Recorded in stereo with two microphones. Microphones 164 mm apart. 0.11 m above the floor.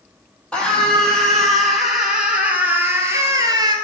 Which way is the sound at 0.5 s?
5° left (ahead or behind).